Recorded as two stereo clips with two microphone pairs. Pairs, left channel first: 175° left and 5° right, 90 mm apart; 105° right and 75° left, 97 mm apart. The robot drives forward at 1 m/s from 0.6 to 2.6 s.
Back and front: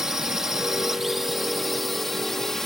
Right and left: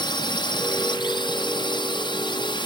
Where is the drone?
90° right; by 2.7 s 100° right.